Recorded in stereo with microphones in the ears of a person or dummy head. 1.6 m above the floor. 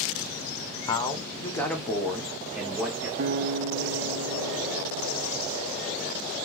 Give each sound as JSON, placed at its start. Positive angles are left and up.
{"t": 0.9, "sound": "a man speaking", "side_deg": 30, "distance_m": 0.8}
{"t": 3.2, "sound": "a guitar", "side_deg": -50, "distance_m": 0.5}